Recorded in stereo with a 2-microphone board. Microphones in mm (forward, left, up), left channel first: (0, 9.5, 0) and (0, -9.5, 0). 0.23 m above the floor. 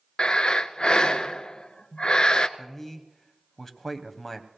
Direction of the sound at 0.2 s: 45° left (ahead or behind).